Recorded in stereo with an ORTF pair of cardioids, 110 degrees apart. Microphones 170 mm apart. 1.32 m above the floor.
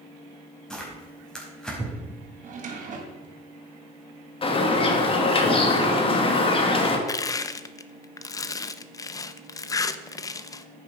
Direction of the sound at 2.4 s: 50° right.